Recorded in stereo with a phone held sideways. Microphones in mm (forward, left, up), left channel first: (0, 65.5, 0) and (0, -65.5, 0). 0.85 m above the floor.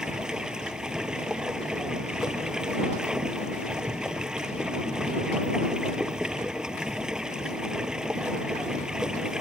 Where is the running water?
5° right (ahead or behind).